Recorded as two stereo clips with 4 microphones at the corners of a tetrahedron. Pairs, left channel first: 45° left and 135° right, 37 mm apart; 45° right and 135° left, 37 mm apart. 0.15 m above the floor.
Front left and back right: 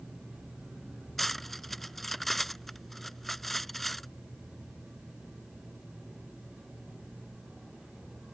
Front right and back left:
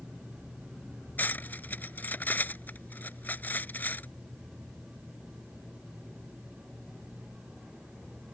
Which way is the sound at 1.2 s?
35° right.